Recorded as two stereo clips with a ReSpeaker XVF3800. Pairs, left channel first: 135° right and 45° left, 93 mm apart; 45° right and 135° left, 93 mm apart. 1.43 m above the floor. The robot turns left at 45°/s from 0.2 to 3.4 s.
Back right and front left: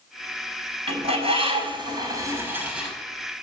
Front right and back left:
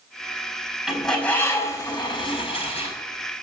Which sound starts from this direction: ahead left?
A bird, at 0.9 s.